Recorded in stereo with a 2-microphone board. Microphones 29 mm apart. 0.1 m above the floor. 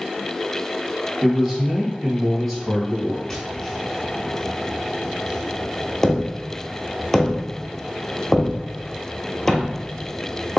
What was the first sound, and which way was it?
A man speaking, centre (ahead or behind).